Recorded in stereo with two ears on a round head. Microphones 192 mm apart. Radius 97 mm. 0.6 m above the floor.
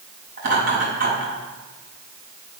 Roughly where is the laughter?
Right.